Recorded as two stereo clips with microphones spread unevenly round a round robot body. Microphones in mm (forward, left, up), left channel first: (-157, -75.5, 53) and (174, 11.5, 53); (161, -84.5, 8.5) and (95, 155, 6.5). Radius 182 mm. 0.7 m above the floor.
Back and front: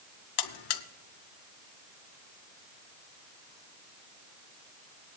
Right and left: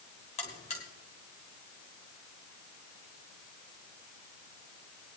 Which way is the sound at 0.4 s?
150° right.